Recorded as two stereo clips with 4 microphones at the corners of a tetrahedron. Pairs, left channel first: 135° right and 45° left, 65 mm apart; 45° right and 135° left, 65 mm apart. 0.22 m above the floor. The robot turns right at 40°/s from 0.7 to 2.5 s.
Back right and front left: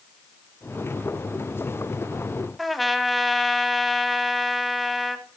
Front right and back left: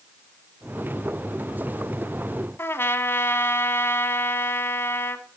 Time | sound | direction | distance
2.6 | a trumpet | 45° right | 0.9 m